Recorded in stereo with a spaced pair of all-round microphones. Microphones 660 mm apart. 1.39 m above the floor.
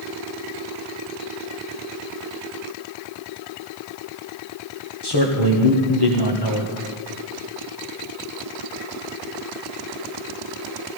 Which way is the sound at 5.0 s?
35° left (ahead or behind).